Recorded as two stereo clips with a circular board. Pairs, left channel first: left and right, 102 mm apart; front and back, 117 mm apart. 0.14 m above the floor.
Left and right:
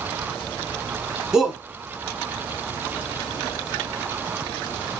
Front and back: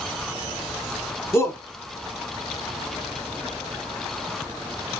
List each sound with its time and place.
1.3 s a shout: 15° right, 1.1 m